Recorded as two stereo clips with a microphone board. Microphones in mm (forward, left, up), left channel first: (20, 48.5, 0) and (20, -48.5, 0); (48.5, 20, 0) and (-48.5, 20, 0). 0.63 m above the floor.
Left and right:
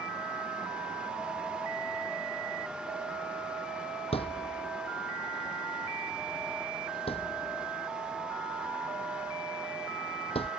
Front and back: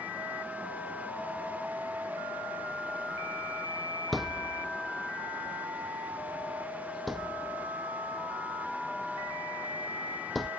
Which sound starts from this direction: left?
A thud, at 4.1 s.